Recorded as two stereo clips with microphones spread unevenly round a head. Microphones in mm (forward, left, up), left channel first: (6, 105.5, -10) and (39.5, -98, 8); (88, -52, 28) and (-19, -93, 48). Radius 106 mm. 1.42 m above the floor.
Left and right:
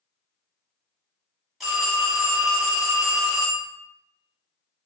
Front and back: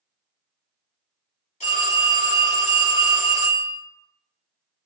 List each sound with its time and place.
1.6 s a phone ringing: 5° left, 1.7 m